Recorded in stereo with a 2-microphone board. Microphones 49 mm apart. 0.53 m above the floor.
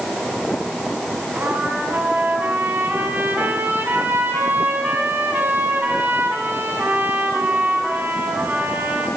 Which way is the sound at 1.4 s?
40° right (ahead or behind).